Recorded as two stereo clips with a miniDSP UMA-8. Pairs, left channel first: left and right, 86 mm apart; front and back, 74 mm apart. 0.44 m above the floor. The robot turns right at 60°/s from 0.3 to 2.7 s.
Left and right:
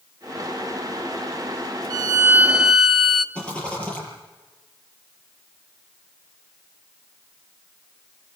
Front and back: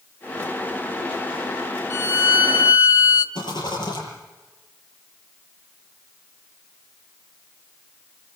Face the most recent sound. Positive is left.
turn(degrees=10)